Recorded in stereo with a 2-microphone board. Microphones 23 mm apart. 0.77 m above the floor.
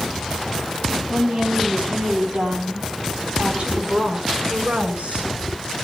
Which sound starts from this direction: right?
A woman speaking, at 1.1 s.